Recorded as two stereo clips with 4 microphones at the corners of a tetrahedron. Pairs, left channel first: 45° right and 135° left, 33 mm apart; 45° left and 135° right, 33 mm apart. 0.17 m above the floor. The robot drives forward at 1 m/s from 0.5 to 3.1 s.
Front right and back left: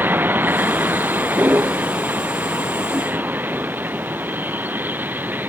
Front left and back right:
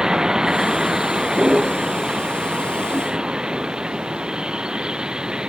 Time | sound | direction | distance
0.0 | a vehicle | 155° left | ?